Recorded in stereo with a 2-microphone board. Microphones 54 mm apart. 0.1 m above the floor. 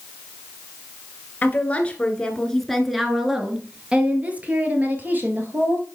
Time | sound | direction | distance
1.4 | a woman speaking | 30° left (ahead or behind) | 1.5 m